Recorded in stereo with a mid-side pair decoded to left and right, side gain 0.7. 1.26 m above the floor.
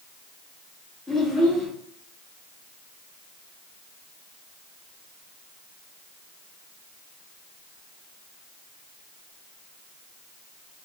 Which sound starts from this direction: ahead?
A child speaking, at 1.1 s.